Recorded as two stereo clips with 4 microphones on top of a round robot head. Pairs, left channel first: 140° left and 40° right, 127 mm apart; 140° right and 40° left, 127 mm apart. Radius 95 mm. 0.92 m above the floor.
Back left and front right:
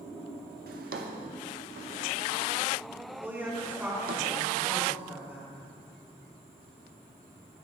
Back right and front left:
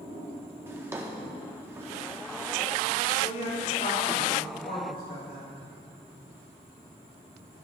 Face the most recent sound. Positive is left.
turn(degrees=-115)